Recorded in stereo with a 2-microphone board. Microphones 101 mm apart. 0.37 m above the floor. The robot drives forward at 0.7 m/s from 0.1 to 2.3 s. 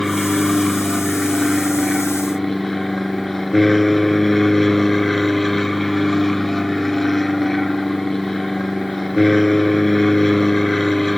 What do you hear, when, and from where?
0.0 s an aircraft: 5° left (ahead or behind); by 11.2 s centre (ahead or behind)